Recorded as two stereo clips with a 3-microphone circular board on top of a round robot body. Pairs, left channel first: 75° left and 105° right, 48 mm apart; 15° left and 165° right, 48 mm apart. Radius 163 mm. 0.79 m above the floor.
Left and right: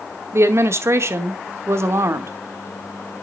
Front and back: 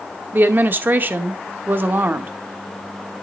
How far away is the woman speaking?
About 1.0 m.